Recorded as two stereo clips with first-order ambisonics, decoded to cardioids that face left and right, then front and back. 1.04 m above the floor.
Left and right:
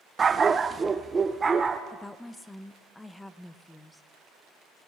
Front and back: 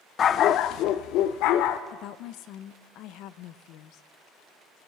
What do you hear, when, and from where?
0.2 s a dog barking: 35° right, 0.5 m; by 1.8 s 15° right, 1.3 m
1.9 s a woman speaking: 5° left, 0.8 m